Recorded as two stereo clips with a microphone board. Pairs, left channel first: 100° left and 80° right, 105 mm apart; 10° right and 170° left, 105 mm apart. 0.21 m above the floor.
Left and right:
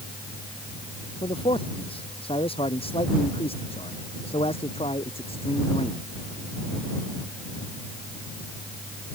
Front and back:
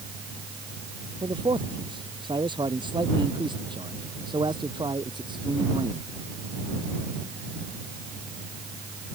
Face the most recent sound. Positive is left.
turn(degrees=125)